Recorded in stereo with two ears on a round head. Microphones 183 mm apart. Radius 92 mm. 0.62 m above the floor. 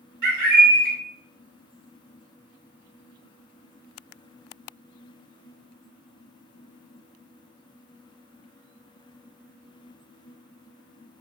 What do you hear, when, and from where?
0.2 s a bird: 45° right (ahead or behind), 1.7 m